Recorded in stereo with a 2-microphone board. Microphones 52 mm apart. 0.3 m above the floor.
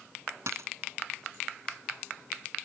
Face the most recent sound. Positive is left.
turn(degrees=-65)  # may be behind; listen again after turning